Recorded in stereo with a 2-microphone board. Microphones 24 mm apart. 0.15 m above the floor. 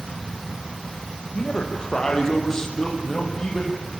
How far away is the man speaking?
About 5 m.